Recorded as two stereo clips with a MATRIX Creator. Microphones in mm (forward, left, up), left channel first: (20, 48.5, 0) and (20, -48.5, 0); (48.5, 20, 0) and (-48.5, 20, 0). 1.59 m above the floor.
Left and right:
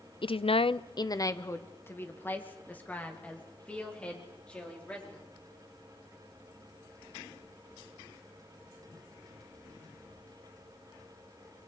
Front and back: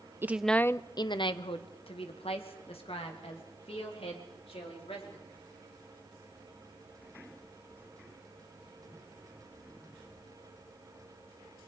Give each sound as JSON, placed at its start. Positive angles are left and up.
{"t": 0.2, "sound": "a woman speaking", "azimuth_deg": 115, "distance_m": 0.6}